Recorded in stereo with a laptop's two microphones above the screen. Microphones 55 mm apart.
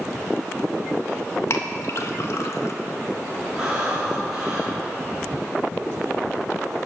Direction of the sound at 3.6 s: 15° right (ahead or behind).